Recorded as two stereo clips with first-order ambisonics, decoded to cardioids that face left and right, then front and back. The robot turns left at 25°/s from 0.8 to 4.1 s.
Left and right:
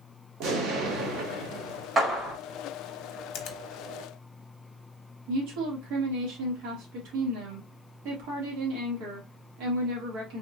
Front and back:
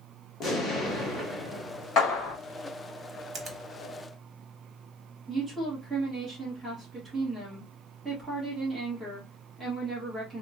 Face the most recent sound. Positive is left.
turn(degrees=-95)